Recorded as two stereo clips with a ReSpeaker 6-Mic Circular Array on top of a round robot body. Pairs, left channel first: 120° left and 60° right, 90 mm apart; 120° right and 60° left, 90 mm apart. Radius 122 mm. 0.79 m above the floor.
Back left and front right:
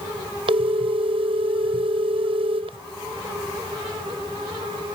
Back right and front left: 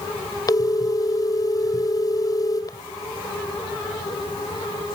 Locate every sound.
0.5 s a phone ringing: 75° right